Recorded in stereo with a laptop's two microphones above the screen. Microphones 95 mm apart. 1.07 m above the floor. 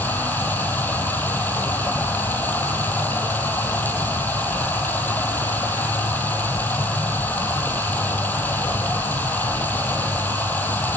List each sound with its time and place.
0.0 s running water: 20° left (ahead or behind), 3.5 m